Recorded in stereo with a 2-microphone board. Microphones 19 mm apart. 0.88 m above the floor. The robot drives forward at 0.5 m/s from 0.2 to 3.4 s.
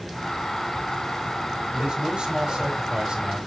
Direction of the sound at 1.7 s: 45° right (ahead or behind).